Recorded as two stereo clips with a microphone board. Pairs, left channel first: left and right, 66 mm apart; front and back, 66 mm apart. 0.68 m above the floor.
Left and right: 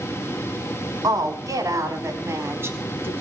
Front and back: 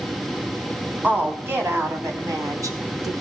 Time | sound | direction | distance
1.0 | a woman speaking | 115° right | 4.5 m